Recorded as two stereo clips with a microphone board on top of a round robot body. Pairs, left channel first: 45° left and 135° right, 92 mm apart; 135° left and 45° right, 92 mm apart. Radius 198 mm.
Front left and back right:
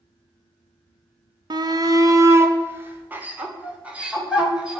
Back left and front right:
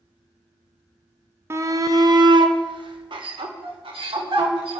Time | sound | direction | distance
1.5 | a shout | 105° right | 1.3 m